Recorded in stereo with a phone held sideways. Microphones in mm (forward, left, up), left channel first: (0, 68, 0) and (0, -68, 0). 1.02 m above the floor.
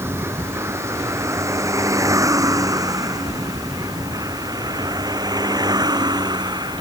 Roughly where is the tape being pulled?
I don't hear tape being pulled.